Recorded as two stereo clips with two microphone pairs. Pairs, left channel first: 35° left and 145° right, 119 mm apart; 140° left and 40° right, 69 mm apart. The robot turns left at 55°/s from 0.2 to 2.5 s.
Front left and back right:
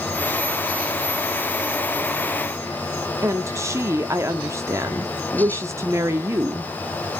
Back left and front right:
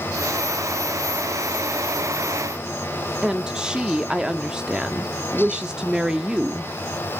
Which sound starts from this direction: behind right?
A woman speaking, at 3.2 s.